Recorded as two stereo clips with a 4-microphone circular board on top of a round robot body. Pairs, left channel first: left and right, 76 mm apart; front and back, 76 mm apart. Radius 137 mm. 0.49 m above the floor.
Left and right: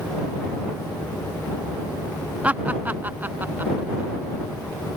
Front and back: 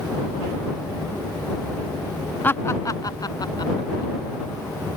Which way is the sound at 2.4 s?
40° right.